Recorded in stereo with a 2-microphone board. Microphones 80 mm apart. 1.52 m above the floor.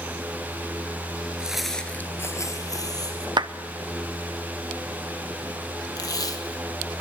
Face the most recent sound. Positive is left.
turn(degrees=50)  # may be behind; listen again after turning